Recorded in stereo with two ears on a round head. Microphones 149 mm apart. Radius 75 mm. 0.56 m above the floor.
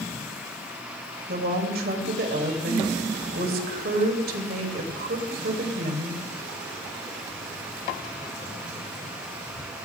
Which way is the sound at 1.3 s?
65° right (ahead or behind).